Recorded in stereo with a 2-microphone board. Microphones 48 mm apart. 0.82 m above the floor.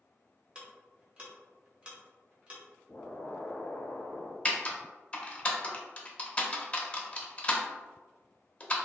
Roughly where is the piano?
I don't hear a piano.